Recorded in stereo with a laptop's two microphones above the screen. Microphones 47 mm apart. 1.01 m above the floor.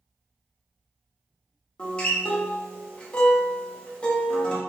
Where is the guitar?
20° left (ahead or behind), 0.5 m.